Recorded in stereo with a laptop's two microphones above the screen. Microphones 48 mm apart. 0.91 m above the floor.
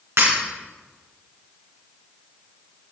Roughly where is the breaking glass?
Right.